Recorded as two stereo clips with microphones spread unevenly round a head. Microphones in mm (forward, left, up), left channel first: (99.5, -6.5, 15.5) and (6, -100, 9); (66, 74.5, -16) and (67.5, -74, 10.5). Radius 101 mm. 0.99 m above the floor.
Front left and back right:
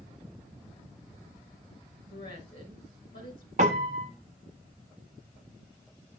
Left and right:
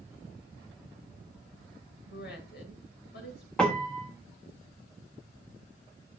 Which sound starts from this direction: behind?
A piano, at 3.6 s.